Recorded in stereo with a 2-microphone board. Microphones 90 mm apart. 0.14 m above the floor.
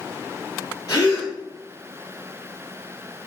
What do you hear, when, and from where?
0.9 s a gasp: 45° left (ahead or behind), 1.7 m